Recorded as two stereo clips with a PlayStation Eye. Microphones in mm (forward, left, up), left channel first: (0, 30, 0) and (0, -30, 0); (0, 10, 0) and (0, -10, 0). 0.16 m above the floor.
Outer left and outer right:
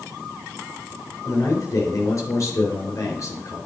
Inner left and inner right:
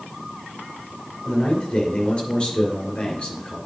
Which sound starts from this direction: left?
A man speaking, at 1.2 s.